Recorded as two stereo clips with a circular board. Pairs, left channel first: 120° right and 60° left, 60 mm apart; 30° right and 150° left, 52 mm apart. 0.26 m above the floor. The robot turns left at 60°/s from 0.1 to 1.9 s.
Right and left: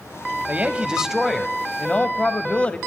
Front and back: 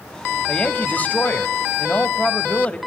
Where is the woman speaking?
20° left, 1.1 m; by 2.8 s 65° right, 1.1 m.